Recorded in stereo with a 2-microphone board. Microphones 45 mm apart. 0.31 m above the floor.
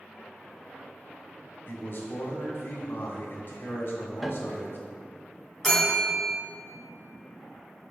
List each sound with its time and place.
1.7 s a man speaking: 40° left (ahead or behind), 1.5 m
4.2 s a piano: 5° right (ahead or behind), 0.5 m
5.6 s a bell: 5° left (ahead or behind), 2.5 m